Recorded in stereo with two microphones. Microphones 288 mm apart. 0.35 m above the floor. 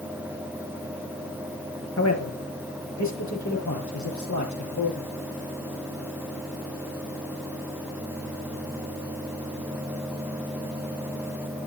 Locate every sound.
2.0 s a man speaking: 65° left (ahead or behind), 5.5 m; by 5.1 s 80° left, 8.5 m